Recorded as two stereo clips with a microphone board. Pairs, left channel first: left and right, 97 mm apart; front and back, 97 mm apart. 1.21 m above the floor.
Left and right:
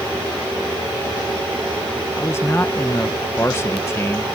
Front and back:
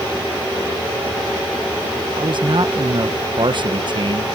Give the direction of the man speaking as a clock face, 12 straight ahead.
7 o'clock.